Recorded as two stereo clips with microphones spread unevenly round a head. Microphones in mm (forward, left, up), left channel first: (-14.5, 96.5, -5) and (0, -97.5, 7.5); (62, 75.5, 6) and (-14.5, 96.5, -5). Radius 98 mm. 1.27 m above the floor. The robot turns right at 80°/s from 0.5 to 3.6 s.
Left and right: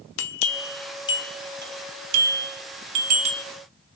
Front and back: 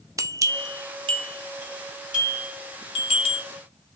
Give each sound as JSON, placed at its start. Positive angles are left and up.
{"t": 0.2, "sound": "a bell", "azimuth_deg": 115, "distance_m": 0.5}